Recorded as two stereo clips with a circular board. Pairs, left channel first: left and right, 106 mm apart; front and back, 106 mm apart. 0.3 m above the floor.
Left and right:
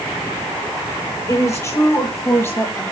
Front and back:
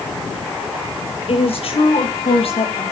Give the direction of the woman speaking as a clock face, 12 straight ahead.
11 o'clock.